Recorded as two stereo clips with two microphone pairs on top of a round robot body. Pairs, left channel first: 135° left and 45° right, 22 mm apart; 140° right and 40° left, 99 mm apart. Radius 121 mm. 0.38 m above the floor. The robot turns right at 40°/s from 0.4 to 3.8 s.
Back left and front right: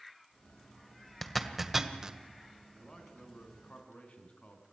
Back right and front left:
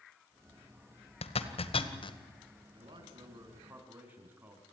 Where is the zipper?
145° right, 1.9 m; by 2.2 s 105° right, 1.9 m.